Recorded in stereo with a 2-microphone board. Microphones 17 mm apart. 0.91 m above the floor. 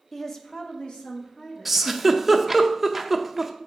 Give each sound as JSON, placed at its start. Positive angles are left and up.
{"t": 0.1, "sound": "a woman speaking", "side_deg": 10, "distance_m": 0.8}
{"t": 1.6, "sound": "a giggle", "side_deg": -15, "distance_m": 0.5}